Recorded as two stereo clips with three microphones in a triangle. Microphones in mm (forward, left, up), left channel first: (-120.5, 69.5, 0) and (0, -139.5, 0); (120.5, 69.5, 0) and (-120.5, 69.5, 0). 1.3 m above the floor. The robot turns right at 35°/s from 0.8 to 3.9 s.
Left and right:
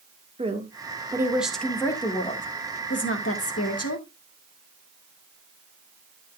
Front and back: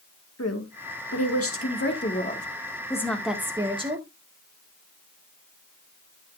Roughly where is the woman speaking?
Ahead.